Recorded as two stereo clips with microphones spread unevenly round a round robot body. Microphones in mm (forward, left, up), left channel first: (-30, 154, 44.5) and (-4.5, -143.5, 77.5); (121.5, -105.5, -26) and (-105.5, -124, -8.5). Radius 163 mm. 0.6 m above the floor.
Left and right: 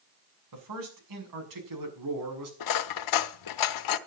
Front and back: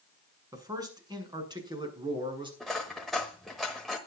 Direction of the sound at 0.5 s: 100° right.